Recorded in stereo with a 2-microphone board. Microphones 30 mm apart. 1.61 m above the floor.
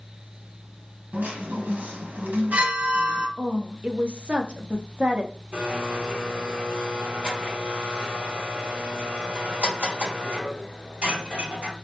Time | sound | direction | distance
1.1 | a chime | 85° right | 1.0 m
3.4 | a woman speaking | 40° right (ahead or behind) | 0.7 m
5.5 | a blender | 50° right (ahead or behind) | 2.5 m